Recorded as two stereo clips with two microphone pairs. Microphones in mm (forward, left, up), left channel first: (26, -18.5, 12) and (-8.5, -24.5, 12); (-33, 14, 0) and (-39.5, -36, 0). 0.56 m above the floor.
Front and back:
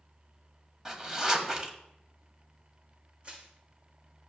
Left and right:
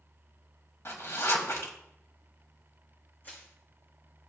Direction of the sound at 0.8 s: 120° left.